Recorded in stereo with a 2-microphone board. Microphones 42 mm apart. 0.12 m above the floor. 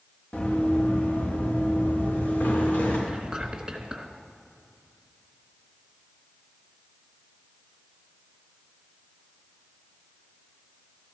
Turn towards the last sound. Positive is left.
turn(degrees=-15)  # may be behind; listen again after turning